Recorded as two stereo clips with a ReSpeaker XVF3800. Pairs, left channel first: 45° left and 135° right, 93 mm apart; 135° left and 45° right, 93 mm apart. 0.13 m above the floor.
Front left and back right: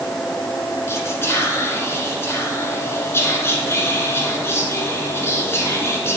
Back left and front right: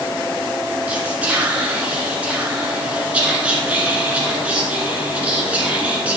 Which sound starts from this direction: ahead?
Whispering, at 0.9 s.